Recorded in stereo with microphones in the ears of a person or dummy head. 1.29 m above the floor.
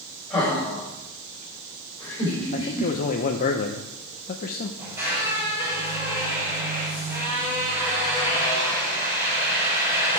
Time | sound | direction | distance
0.3 | laughter | 5° left (ahead or behind) | 4.5 m
2.5 | a man speaking | 40° left (ahead or behind) | 0.8 m
4.8 | a squeak | 15° right (ahead or behind) | 5.5 m